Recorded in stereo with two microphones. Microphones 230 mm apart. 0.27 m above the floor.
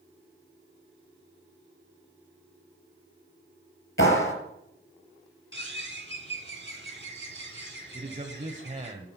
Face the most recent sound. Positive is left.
turn(degrees=-35)  # may be behind; listen again after turning